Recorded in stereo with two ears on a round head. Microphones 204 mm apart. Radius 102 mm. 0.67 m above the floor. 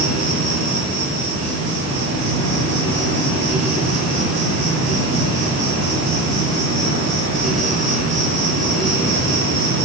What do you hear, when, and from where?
0.0 s an insect: 55° right (ahead or behind), 8 m